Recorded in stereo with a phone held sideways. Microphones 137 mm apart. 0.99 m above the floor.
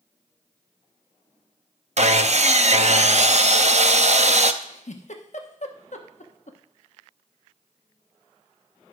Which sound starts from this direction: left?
A giggle, at 4.6 s.